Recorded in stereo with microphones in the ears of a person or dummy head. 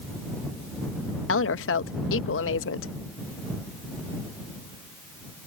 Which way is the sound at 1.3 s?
70° left (ahead or behind).